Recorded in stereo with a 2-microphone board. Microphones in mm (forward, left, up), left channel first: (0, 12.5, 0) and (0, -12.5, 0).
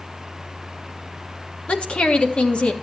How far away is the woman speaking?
About 1.5 m.